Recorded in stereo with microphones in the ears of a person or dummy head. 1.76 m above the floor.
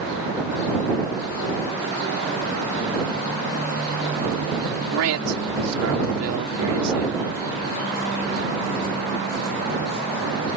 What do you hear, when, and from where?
4.9 s a man speaking: 80° right